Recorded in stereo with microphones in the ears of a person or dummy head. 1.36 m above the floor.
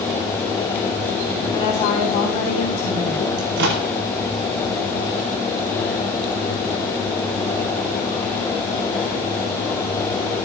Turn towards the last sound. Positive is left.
turn(degrees=-65)  # may be behind; listen again after turning